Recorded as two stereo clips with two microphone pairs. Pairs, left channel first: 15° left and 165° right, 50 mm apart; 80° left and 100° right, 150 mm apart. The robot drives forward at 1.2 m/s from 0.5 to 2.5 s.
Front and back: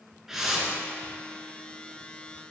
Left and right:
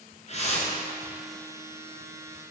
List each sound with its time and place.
0.3 s a whoosh: 115° left, 1.9 m; by 0.8 s 125° left, 2 m